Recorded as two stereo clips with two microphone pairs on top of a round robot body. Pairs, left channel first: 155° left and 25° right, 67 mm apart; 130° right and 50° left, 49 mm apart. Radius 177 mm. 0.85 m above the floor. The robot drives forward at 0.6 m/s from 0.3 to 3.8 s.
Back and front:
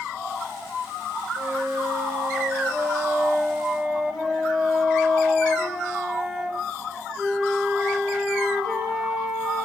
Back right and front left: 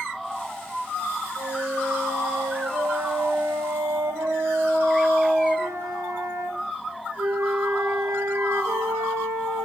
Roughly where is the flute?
Ahead left.